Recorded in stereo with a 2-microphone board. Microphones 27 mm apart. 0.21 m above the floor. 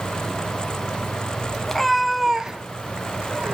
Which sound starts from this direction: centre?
A cat meowing, at 1.7 s.